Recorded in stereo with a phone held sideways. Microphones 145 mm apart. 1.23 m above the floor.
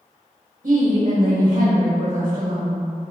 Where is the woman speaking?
75° right (ahead or behind), 1.1 m.